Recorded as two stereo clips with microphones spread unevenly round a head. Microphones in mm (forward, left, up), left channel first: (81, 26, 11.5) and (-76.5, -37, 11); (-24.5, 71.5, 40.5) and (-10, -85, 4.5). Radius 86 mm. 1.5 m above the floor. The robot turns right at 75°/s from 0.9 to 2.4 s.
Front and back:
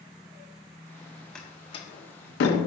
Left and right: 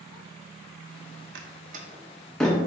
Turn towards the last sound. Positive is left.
turn(degrees=15)